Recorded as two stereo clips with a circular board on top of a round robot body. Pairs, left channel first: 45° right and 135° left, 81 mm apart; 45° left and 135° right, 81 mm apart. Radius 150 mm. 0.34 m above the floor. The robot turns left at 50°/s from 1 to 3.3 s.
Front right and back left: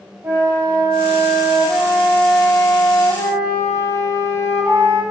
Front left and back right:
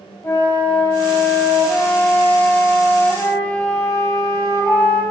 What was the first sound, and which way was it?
A flute, 85° left.